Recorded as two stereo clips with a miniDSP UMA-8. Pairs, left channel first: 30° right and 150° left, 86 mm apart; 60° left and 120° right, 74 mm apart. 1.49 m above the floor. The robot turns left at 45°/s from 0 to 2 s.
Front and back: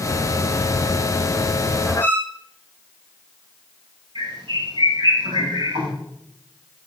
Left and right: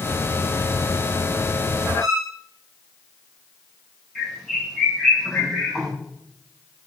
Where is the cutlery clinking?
No cutlery clinking in this recording.